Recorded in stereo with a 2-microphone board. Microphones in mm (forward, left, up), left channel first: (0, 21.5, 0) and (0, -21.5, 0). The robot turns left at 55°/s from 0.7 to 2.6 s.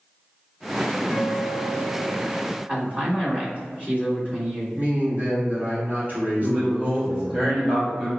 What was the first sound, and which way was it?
A guitar, 5° left (ahead or behind).